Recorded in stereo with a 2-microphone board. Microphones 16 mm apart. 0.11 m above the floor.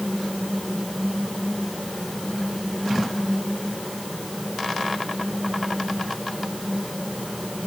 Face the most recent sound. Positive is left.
No sound to turn to.